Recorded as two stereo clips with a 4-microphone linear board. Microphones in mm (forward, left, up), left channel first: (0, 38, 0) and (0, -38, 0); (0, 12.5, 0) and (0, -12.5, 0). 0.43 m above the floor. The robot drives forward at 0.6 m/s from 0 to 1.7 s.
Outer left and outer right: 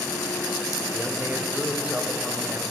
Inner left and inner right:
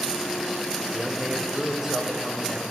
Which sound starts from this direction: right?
A man speaking, at 0.9 s.